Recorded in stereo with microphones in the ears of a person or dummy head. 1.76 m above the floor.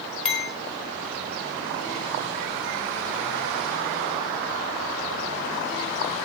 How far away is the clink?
About 2.5 m.